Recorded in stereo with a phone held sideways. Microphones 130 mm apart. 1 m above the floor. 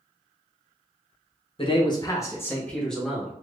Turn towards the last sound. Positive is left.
turn(degrees=-5)  # may be behind; listen again after turning